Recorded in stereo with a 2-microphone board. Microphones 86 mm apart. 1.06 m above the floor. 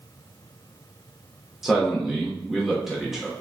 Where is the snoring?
No snoring in this recording.